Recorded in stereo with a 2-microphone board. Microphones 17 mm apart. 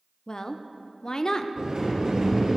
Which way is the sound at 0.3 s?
45° left (ahead or behind).